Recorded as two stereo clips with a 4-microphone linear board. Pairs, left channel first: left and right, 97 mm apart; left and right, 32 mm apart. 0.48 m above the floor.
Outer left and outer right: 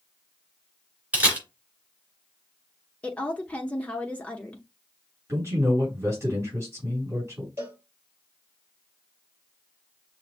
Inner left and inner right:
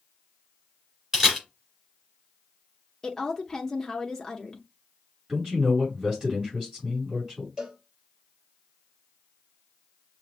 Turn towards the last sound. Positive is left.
turn(degrees=-25)  # may be behind; listen again after turning